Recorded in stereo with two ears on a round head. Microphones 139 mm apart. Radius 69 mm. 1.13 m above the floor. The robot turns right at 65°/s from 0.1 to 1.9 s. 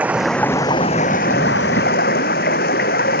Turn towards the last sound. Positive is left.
turn(degrees=105)